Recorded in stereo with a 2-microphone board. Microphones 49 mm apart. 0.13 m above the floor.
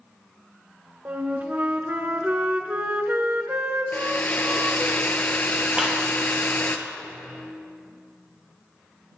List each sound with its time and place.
1.1 s a flute: 40° right (ahead or behind), 0.9 m
3.9 s a hair dryer: 40° left (ahead or behind), 0.8 m
5.8 s a clap: 15° right (ahead or behind), 2.5 m